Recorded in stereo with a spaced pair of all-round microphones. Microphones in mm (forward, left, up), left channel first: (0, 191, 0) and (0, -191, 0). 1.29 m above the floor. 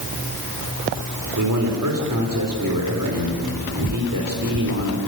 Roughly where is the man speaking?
Right.